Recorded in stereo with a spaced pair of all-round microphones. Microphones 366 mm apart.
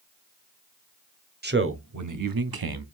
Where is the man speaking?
30° right (ahead or behind), 0.7 m; by 2.9 s 80° right, 0.7 m.